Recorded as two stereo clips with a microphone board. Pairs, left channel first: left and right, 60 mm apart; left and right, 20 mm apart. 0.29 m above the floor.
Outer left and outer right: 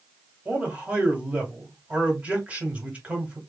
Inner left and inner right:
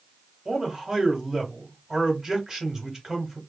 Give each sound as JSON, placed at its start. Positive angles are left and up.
{"t": 0.5, "sound": "a man speaking", "side_deg": -25, "distance_m": 1.9}